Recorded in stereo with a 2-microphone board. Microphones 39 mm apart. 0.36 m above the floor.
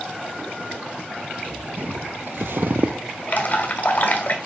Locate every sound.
1.8 s footsteps: 55° right (ahead or behind), 1.2 m; by 3.0 s 40° right (ahead or behind), 0.6 m
3.3 s dripping: 50° left (ahead or behind), 1.5 m